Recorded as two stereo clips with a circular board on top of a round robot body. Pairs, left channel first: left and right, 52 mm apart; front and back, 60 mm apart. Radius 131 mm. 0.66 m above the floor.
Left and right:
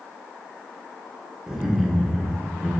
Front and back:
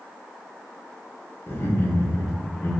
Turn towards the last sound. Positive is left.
turn(degrees=-15)